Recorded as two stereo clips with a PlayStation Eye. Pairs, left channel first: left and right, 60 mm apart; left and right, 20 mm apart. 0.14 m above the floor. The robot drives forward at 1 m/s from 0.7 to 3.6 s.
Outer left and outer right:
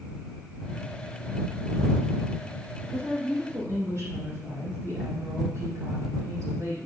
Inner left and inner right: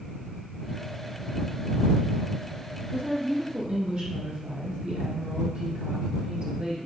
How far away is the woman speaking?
About 4.5 m.